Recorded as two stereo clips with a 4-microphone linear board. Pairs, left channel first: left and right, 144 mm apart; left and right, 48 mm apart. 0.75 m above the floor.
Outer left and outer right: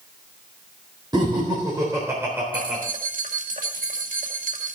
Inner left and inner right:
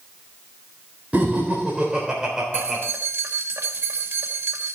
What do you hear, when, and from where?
1.1 s laughter: 30° right (ahead or behind), 4 m; by 2.8 s 10° right (ahead or behind), 3.5 m
2.5 s keys jangling: 75° right (ahead or behind), 1.9 m